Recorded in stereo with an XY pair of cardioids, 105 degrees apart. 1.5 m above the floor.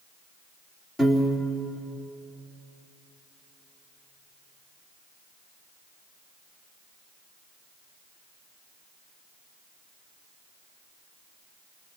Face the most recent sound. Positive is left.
turn(degrees=15)